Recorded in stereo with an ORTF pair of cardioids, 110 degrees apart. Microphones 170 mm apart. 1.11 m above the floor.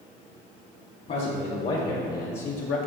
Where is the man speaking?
50° left, 1.8 m; by 2.8 s 70° left, 0.9 m.